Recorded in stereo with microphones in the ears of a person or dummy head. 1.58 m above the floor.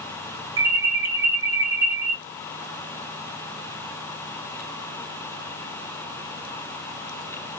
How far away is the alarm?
About 0.9 m.